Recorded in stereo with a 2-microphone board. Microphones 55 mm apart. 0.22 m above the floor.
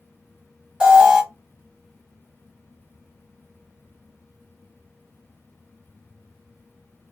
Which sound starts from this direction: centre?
An alarm, at 0.8 s.